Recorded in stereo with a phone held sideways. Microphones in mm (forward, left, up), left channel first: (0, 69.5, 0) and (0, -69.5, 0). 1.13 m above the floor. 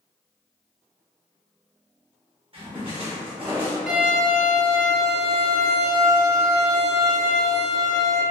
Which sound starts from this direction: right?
A splash, at 2.5 s.